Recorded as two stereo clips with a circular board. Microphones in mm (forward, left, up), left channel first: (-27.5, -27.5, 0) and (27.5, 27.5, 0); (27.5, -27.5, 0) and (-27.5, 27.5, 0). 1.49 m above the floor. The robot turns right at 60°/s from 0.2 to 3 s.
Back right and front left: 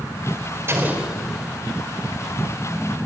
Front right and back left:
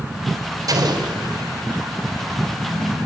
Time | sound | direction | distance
0.7 | an explosion | 100° left | 4 m